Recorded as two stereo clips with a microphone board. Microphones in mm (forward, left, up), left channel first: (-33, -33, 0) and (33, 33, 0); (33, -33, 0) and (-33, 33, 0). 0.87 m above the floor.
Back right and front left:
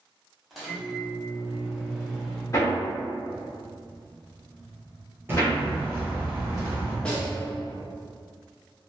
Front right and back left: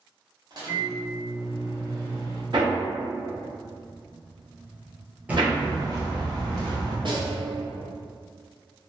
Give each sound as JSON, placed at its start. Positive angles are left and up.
{"t": 0.5, "sound": "a microwave", "azimuth_deg": 135, "distance_m": 0.9}
{"t": 2.5, "sound": "hammering", "azimuth_deg": 170, "distance_m": 0.9}
{"t": 5.3, "sound": "footsteps", "azimuth_deg": 75, "distance_m": 0.9}
{"t": 7.0, "sound": "a snare drum", "azimuth_deg": 145, "distance_m": 0.6}